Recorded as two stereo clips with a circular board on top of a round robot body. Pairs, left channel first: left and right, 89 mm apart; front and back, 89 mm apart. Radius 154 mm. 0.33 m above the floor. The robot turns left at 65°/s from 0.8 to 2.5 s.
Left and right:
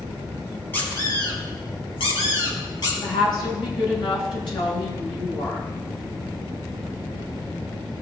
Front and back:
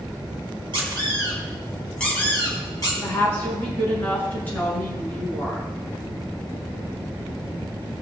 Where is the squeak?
160° left, 5 m; by 2.9 s 45° left, 5 m.